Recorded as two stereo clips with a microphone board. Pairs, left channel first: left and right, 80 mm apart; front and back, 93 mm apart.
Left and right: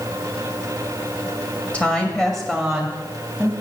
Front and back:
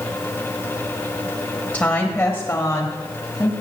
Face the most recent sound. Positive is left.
turn(degrees=-25)